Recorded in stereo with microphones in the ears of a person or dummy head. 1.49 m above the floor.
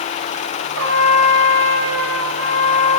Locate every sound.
0.8 s a trumpet: 70° right (ahead or behind), 9.5 m